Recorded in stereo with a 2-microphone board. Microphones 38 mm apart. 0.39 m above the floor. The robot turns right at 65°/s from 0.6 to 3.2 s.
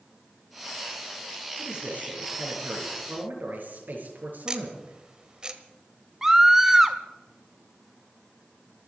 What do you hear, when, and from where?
1.6 s a man speaking: 165° right, 6.5 m; by 5.0 s 60° right, 6.5 m
4.5 s ticking: 25° right (ahead or behind), 1.4 m
6.2 s a scream: 15° right (ahead or behind), 0.8 m